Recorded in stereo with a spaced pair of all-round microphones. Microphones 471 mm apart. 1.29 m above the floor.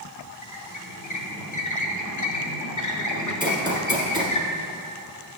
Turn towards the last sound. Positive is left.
turn(degrees=-10)  # may be behind; listen again after turning